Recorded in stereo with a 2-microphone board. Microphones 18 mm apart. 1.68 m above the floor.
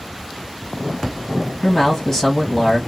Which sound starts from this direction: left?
A man speaking, at 1.6 s.